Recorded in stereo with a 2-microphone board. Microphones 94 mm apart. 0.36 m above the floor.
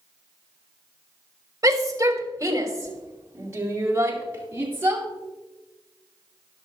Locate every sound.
1.6 s a shout: 35° right (ahead or behind), 1.9 m; by 5.0 s 25° right (ahead or behind), 4.5 m